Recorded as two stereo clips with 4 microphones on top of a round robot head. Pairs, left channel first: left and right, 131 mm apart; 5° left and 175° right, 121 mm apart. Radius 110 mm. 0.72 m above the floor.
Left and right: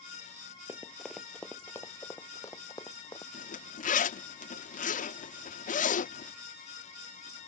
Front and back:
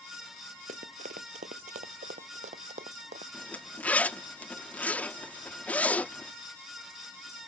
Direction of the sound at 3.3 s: 85° left.